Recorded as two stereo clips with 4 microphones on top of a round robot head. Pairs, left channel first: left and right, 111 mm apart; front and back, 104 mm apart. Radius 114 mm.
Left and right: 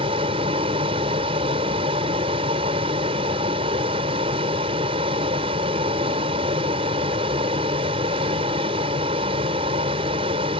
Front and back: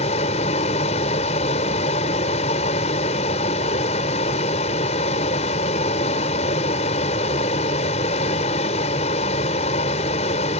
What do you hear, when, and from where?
0.0 s a vehicle: 40° right